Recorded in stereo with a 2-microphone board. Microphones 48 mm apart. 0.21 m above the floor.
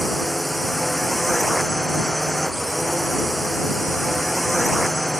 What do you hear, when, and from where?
0.0 s a drone: centre (ahead or behind)